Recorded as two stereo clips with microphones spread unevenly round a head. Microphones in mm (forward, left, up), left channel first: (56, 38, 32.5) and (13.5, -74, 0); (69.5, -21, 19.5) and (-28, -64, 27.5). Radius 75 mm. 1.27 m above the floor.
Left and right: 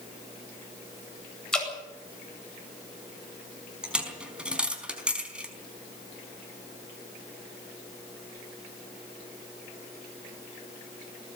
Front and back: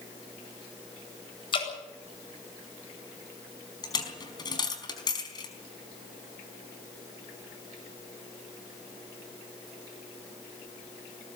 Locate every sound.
1.5 s dripping: 15° right, 8 m
3.8 s a dropped coin: 25° right, 4.5 m